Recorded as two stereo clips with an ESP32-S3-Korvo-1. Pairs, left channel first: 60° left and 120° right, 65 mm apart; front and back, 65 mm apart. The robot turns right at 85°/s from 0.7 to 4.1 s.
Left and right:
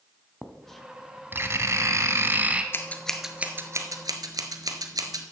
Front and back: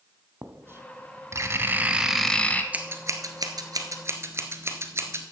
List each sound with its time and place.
0.4 s writing: 140° left, 0.8 m; by 2.6 s 55° right, 0.8 m
2.7 s scissors: 110° left, 1.0 m; by 5.3 s 135° right, 1.0 m